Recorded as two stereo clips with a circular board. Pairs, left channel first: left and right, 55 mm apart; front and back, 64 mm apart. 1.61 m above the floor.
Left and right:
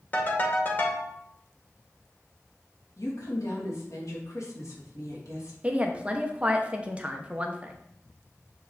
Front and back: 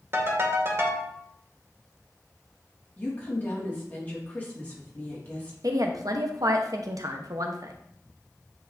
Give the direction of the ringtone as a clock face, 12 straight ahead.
7 o'clock.